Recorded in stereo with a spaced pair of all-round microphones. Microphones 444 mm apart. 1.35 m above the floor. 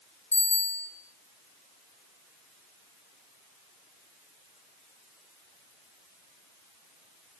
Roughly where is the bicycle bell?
Left.